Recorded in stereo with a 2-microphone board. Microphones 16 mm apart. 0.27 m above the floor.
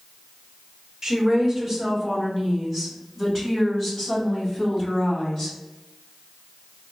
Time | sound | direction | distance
1.0 | a woman speaking | 25° right (ahead or behind) | 1.4 m